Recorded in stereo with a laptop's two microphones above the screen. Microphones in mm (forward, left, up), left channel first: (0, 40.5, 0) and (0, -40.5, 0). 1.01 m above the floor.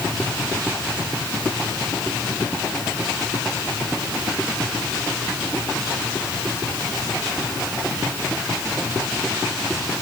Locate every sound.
Only background noise.